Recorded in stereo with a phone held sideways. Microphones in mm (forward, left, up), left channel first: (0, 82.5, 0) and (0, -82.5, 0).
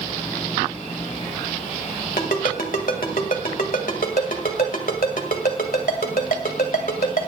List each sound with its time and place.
2.2 s a ringtone: 65° left (ahead or behind), 1.8 m